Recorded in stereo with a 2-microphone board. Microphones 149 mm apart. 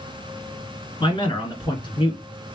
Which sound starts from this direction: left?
A man speaking, at 1.0 s.